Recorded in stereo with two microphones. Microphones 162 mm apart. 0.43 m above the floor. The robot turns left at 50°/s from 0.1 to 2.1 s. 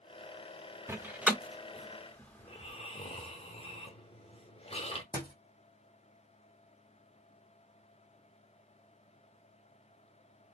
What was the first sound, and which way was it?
A door slam, 15° right (ahead or behind).